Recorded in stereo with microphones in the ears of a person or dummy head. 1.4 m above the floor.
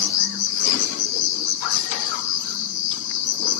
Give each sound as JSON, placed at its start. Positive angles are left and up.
{"t": 0.0, "sound": "an insect", "side_deg": 65, "distance_m": 1.0}